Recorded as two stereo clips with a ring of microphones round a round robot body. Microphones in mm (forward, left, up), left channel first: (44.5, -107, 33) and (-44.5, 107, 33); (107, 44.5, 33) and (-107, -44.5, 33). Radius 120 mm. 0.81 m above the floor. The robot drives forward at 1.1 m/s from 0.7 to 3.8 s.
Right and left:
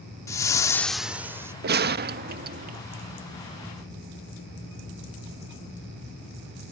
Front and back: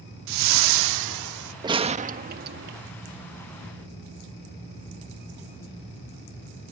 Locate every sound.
0.3 s a whoosh: 145° right; by 1.5 s 170° right
1.6 s a gunshot: 135° left; by 2.8 s 165° left